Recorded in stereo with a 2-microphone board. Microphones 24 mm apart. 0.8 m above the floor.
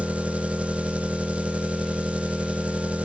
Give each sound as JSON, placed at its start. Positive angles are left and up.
{"t": 0.0, "sound": "an engine running", "side_deg": -65, "distance_m": 0.8}